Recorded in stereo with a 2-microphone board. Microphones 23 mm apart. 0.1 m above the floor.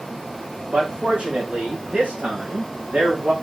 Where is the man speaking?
50° right (ahead or behind), 7.5 m; by 3.3 s 80° right, 7 m.